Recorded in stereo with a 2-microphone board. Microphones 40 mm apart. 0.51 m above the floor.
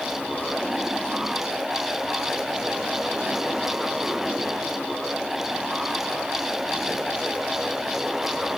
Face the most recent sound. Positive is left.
No sound to turn to.